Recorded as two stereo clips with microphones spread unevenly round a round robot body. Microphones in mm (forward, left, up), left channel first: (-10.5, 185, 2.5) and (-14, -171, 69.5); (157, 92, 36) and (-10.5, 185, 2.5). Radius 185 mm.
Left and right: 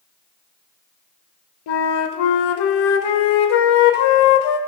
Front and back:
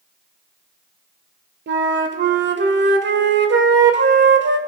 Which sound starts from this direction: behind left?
A flute, at 1.7 s.